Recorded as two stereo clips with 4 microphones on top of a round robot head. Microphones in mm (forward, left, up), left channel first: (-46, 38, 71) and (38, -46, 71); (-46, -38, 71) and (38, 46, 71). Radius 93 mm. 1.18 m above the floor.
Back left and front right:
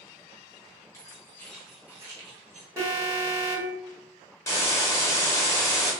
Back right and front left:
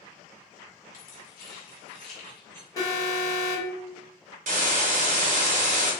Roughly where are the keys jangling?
Behind.